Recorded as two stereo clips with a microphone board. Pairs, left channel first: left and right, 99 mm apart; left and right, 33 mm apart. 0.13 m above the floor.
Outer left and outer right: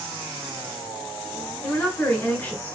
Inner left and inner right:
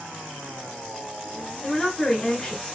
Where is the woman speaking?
20° left (ahead or behind), 1.2 m.